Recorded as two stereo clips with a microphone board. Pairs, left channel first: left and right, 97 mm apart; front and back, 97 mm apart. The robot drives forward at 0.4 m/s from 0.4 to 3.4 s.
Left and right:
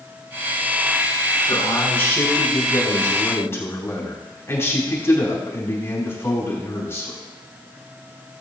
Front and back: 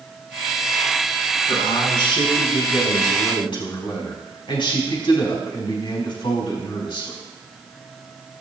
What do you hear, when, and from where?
1.5 s a man speaking: 25° left, 5 m; by 7.2 s 30° left, 4 m